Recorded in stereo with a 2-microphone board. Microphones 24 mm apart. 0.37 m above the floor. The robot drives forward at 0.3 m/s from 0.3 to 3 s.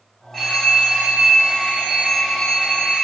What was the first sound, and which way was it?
A phone ringing, 15° left (ahead or behind).